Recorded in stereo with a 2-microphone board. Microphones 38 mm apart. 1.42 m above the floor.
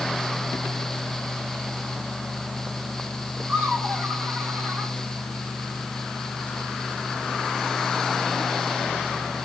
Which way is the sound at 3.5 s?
75° right (ahead or behind).